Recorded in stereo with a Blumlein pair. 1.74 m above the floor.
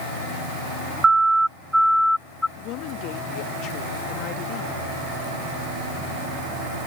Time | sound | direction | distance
1.0 | a siren | 10° right | ?
2.6 | a woman speaking | 40° left | ?